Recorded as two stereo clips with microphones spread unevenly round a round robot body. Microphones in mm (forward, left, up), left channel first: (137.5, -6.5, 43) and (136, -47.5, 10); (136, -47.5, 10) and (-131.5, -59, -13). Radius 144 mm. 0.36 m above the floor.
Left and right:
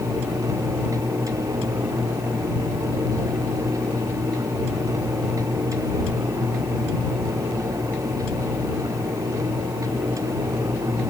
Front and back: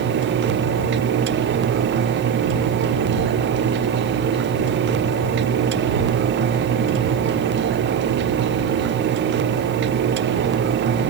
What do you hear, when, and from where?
Only background noise.